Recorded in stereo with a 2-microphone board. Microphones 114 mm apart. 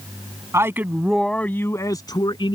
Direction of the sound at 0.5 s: 25° right (ahead or behind).